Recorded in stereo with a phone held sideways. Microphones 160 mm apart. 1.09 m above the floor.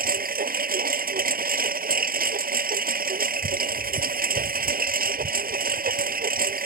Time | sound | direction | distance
0.0 | a lawn mower | 70° right (ahead or behind) | ?